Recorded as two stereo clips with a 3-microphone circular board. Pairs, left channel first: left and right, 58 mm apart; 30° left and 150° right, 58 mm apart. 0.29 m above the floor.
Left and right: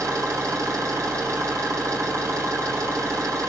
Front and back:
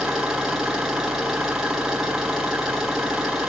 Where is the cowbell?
No cowbell in this recording.